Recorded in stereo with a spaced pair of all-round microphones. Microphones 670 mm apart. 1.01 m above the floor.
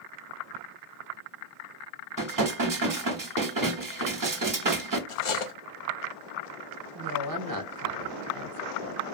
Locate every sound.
2.2 s dishes clattering: 35° right (ahead or behind), 0.5 m
5.1 s cutlery clinking: 50° left (ahead or behind), 0.5 m
7.0 s a woman speaking: 35° right (ahead or behind), 0.6 m